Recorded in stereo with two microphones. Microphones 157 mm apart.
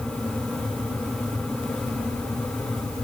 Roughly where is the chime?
No chime in this recording.